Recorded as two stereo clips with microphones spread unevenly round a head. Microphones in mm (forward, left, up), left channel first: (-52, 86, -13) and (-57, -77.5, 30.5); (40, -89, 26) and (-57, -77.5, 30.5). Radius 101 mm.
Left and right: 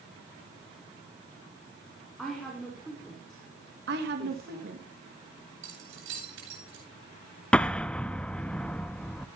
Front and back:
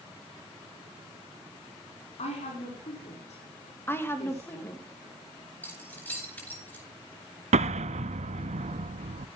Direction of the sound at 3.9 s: 75° right.